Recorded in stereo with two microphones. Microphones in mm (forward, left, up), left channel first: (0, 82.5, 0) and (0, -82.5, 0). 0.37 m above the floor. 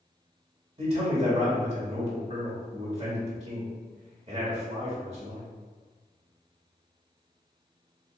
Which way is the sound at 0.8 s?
35° right (ahead or behind).